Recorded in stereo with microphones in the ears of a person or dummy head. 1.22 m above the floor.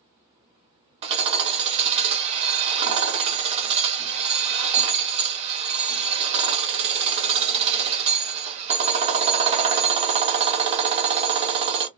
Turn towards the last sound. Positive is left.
turn(degrees=-30)  # may be behind; listen again after turning